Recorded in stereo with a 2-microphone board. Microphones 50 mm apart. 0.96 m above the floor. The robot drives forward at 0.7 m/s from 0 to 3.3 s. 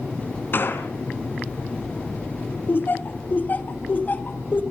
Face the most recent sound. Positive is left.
turn(degrees=35)  # may be behind; listen again after turning